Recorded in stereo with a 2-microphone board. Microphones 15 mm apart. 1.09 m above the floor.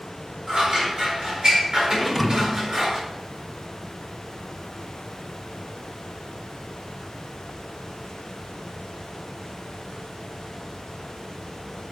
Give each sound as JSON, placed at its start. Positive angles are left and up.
{"t": 0.5, "sound": "scissors", "side_deg": -65, "distance_m": 4.5}
{"t": 2.0, "sound": "a thud", "side_deg": 0, "distance_m": 1.4}